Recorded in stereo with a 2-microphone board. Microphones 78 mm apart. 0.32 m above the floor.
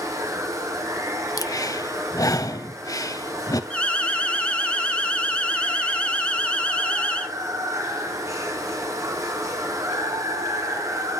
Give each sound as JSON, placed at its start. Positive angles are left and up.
{"t": 0.0, "sound": "running water", "side_deg": -45, "distance_m": 1.5}
{"t": 1.4, "sound": "breathing", "side_deg": 50, "distance_m": 0.5}
{"t": 3.7, "sound": "an alarm", "side_deg": 15, "distance_m": 0.8}